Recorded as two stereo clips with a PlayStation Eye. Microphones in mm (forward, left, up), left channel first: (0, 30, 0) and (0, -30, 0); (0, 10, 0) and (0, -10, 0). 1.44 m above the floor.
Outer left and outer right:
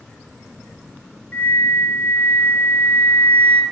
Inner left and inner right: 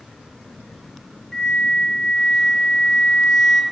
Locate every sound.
1.3 s a flute: 30° left (ahead or behind), 1.9 m